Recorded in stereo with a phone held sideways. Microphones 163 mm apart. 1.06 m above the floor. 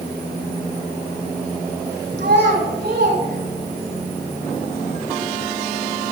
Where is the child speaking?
85° right, 5.5 m.